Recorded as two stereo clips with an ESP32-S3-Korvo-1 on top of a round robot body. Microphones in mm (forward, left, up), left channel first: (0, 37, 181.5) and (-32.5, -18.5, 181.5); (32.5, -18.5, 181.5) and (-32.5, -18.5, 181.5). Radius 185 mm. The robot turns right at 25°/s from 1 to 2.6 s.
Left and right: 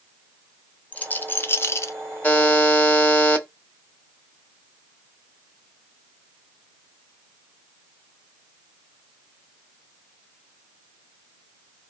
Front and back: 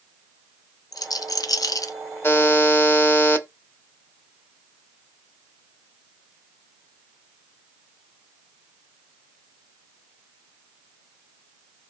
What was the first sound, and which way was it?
A rattle, 5° right.